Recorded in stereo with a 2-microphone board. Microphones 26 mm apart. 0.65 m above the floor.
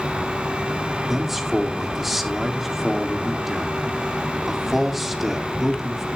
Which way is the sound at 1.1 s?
10° right (ahead or behind).